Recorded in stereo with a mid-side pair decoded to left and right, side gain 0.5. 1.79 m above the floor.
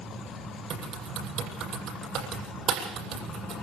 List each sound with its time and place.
0.7 s typing on a keyboard: 65° right, 8.5 m